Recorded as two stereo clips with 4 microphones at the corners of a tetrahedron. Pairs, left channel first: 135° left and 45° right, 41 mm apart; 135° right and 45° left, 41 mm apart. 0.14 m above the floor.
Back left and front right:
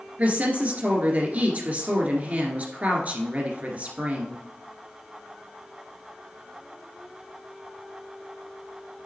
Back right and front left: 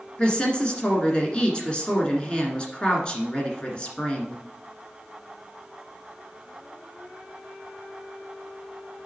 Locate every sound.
0.2 s a woman speaking: 80° right, 1.8 m